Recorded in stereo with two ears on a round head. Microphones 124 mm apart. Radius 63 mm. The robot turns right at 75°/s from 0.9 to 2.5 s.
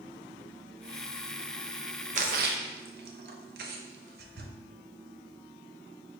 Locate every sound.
2.1 s a splash: 60° right (ahead or behind), 0.6 m; by 4.5 s 80° right, 0.6 m